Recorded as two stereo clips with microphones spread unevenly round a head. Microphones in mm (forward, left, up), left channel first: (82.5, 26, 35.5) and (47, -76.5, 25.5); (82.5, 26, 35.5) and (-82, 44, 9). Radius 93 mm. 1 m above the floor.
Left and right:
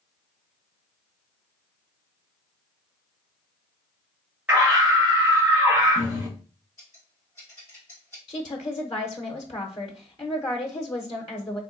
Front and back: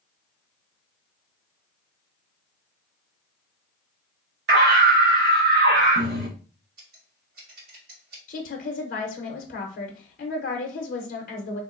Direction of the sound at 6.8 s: 145° left.